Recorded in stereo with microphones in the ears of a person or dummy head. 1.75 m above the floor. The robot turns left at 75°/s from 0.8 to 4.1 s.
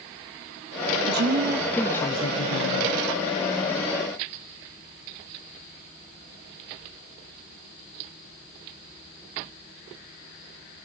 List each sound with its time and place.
1.1 s a woman speaking: 125° right, 0.8 m; by 3.0 s 95° left, 0.8 m